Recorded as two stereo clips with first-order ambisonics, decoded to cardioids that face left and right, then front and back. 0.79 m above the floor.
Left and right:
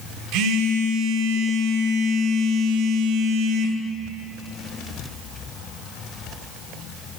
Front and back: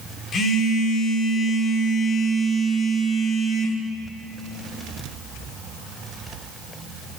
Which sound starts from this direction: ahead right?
A phone buzzing, at 0.3 s.